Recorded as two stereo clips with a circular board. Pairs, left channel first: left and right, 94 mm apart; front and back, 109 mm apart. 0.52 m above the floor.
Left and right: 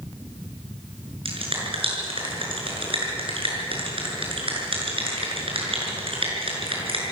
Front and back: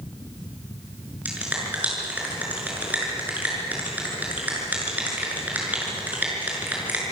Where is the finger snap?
105° right, 6.5 m.